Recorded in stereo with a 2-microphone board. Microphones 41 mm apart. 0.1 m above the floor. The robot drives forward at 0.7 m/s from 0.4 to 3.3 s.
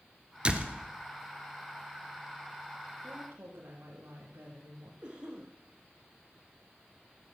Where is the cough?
20° right (ahead or behind), 5.5 m.